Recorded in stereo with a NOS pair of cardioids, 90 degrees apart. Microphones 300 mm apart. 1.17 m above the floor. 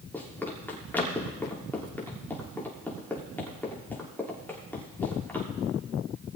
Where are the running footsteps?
5° left, 6.5 m.